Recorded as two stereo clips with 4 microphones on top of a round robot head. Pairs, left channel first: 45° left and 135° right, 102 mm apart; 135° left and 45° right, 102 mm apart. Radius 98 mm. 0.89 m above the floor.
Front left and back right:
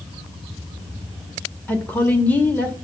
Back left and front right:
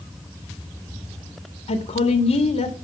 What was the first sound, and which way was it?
A woman speaking, 120° left.